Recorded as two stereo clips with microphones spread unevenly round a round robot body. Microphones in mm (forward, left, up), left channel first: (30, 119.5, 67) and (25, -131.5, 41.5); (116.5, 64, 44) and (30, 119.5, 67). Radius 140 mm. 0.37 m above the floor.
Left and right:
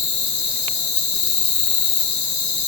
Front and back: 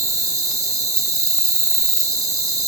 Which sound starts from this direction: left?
An insect, at 0.0 s.